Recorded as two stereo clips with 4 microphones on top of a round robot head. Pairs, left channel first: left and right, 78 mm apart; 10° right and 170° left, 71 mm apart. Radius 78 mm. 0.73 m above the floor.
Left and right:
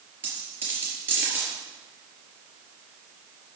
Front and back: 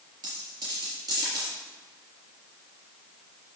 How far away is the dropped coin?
About 4 m.